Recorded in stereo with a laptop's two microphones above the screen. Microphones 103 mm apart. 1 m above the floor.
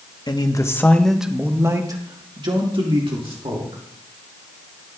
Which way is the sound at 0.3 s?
40° left (ahead or behind).